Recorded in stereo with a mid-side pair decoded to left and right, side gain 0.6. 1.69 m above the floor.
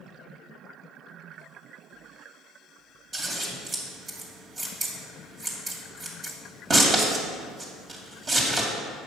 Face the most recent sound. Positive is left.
turn(degrees=-35)